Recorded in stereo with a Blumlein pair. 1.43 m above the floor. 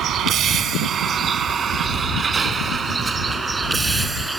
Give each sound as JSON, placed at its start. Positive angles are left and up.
{"t": 0.0, "sound": "a vehicle", "azimuth_deg": -30}